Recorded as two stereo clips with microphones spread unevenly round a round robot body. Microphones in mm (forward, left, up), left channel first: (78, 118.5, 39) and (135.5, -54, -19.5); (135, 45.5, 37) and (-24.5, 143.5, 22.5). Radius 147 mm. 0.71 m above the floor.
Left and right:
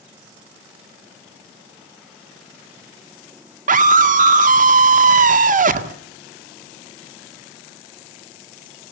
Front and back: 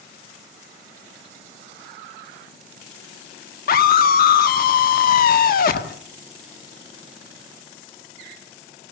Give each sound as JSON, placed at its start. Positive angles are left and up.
{"t": 3.7, "sound": "a scream", "azimuth_deg": -75, "distance_m": 1.7}